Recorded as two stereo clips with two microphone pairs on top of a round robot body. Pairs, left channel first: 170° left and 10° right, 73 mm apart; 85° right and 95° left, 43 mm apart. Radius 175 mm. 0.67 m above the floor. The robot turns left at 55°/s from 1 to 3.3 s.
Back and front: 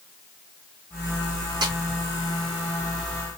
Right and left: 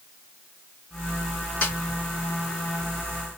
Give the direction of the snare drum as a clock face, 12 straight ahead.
1 o'clock.